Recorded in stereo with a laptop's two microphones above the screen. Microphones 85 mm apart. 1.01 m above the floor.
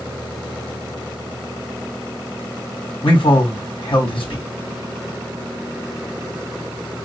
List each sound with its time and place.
3.0 s a man speaking: 80° left, 3.5 m